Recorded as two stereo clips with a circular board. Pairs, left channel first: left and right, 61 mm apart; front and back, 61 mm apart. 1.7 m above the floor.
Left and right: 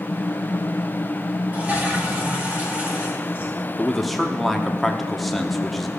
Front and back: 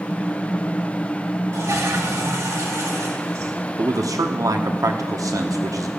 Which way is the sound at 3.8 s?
Straight behind.